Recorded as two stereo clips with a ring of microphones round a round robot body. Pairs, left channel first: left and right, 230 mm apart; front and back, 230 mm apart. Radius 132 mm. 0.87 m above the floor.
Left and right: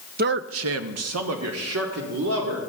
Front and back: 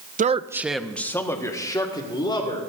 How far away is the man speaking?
About 0.6 m.